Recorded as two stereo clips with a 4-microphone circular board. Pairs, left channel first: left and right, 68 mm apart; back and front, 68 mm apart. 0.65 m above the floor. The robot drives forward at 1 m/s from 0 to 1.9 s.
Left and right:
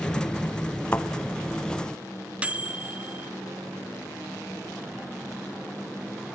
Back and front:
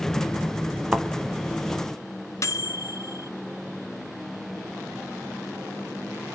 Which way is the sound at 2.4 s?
155° right.